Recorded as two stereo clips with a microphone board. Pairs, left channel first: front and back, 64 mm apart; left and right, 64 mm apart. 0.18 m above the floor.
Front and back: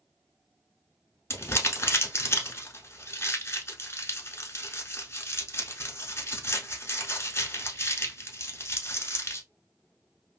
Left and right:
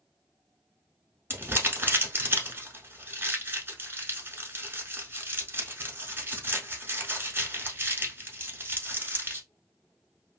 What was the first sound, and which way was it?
Crumpling, 40° right.